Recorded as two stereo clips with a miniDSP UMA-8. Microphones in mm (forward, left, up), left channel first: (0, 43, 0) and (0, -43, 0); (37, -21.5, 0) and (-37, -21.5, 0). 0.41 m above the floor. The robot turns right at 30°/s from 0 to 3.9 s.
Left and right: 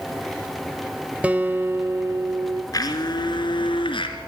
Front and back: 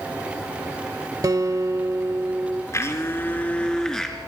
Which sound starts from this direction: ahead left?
A blender, at 2.7 s.